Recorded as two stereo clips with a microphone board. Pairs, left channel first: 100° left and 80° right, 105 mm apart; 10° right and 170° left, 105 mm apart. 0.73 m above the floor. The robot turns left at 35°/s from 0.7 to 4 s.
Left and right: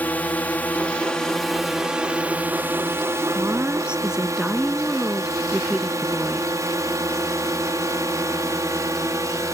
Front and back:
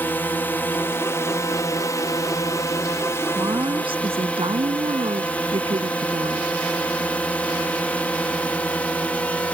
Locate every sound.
0.0 s a drone: 40° left; by 9.6 s 75° right
3.4 s a woman speaking: 140° right; by 6.5 s 165° right